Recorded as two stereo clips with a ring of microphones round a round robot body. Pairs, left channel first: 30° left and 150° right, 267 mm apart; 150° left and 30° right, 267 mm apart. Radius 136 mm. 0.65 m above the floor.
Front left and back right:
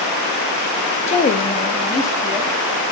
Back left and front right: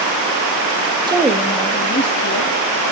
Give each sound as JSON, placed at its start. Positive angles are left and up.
{"t": 1.1, "sound": "a woman speaking", "azimuth_deg": 20, "distance_m": 0.7}